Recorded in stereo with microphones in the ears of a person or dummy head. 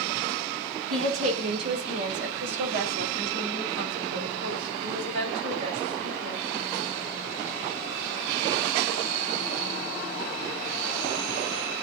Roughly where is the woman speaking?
Right.